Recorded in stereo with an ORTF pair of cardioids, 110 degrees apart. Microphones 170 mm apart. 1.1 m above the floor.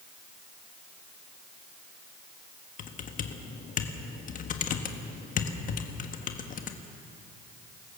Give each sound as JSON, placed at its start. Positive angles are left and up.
{"t": 2.8, "sound": "typing on a keyboard", "azimuth_deg": 50, "distance_m": 1.5}